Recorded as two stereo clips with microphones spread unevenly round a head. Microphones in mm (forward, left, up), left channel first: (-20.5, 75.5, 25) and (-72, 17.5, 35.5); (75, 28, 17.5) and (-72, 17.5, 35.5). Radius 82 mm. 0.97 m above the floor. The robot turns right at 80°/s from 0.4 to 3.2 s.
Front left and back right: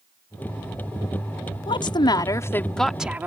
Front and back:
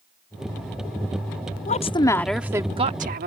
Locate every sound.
1.7 s a woman speaking: 40° left; by 3.3 s 160° left